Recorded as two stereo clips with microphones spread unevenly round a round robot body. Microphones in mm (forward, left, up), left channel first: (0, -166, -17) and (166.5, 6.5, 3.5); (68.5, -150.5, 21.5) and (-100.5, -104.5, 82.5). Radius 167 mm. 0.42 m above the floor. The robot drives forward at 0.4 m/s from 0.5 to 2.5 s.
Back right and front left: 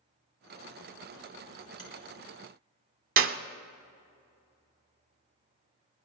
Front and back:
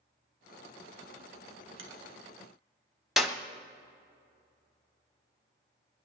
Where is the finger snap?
150° left, 1.8 m; by 1.9 s 155° left, 1.9 m.